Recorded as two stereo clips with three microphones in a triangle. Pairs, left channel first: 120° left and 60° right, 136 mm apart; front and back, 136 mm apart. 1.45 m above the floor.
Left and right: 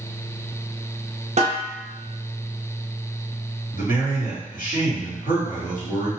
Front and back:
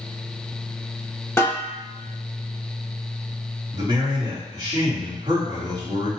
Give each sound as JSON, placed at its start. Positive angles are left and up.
{"t": 1.4, "sound": "a snare drum", "azimuth_deg": -70, "distance_m": 0.8}
{"t": 3.7, "sound": "a man speaking", "azimuth_deg": 120, "distance_m": 1.3}